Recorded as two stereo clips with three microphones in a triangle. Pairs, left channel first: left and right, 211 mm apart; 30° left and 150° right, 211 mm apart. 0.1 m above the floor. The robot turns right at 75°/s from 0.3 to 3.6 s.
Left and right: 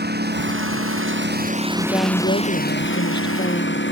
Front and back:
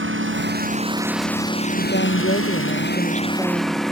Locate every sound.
0.0 s a lawn mower: 130° right; by 3.9 s 120° left
1.8 s a woman speaking: 10° left; by 3.8 s 145° left